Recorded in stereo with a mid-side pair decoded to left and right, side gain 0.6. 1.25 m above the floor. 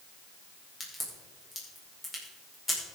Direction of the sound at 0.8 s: 20° left.